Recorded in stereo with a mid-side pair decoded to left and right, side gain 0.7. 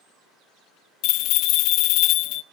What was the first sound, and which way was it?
A bell, 60° left.